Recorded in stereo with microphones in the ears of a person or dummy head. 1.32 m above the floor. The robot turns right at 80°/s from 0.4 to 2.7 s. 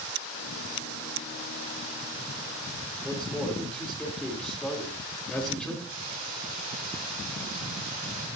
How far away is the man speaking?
About 3.5 m.